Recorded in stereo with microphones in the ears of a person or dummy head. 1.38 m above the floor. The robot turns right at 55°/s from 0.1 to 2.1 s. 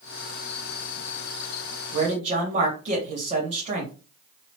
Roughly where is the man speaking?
Right.